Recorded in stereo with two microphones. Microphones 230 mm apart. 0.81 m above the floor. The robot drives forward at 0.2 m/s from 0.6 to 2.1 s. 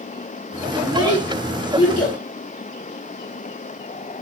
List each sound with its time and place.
0.8 s a child speaking: 80° left, 2 m; by 2.2 s 75° left (ahead or behind), 2 m